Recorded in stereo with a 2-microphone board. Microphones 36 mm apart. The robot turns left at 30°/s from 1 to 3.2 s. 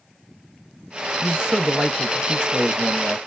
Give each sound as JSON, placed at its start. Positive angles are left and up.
{"t": 1.2, "sound": "a man speaking", "side_deg": -25, "distance_m": 1.0}